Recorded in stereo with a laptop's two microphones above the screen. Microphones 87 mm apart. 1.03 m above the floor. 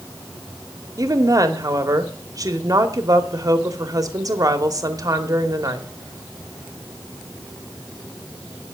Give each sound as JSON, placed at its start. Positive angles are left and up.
{"t": 1.0, "sound": "a woman speaking", "side_deg": -40, "distance_m": 2.0}